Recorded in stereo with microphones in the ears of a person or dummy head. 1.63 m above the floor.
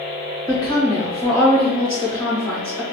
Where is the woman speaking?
20° left (ahead or behind), 1.3 m.